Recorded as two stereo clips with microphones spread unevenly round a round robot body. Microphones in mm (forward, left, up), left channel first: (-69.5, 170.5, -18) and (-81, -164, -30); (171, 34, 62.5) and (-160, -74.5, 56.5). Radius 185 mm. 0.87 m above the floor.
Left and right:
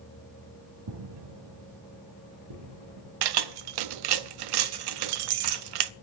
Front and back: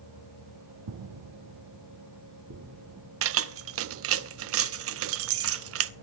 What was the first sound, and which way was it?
Footsteps, 125° right.